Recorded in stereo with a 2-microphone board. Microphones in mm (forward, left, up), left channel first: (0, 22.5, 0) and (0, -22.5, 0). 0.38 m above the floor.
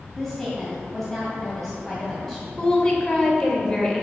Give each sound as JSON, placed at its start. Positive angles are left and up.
{"t": 0.1, "sound": "a woman speaking", "side_deg": 5, "distance_m": 2.0}
{"t": 2.6, "sound": "a woman speaking", "side_deg": 15, "distance_m": 1.7}